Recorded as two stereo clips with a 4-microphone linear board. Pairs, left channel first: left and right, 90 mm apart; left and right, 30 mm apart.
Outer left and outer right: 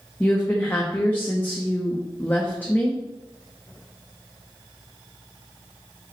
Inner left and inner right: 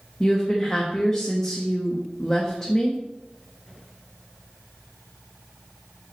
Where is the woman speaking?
20° left (ahead or behind), 1.0 m.